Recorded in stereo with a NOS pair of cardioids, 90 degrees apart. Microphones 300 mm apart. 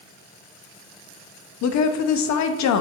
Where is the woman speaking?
65° left, 0.6 m.